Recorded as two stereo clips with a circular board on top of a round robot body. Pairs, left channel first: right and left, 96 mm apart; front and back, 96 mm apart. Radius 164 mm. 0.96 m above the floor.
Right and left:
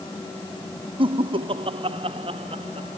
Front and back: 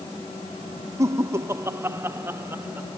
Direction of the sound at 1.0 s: 120° left.